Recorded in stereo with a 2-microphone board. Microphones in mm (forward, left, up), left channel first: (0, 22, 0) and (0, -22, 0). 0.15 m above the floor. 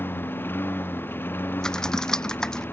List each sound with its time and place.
0.0 s a lawn mower: 50° left (ahead or behind)
1.6 s typing on a keyboard: 15° left (ahead or behind)